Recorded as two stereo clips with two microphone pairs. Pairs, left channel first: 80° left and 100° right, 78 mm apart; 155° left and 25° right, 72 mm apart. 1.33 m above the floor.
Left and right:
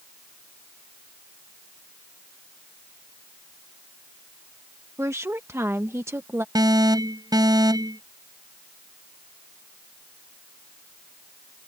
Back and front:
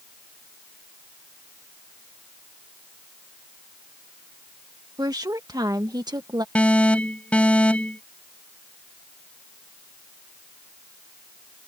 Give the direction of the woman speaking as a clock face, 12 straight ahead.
2 o'clock.